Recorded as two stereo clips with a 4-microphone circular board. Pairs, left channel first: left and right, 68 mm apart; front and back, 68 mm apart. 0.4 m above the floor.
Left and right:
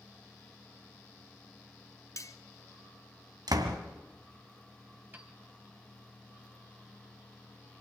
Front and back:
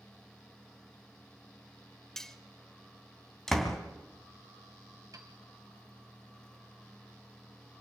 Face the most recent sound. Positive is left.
turn(degrees=-155)